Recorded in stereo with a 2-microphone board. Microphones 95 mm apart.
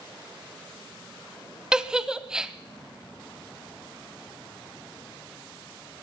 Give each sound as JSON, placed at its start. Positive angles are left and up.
{"t": 1.7, "sound": "a giggle", "side_deg": -5, "distance_m": 0.7}